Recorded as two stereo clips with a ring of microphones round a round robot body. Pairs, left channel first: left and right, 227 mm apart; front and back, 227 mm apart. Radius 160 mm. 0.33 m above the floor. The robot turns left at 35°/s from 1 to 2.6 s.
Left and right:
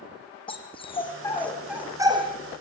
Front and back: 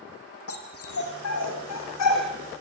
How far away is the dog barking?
About 4.5 m.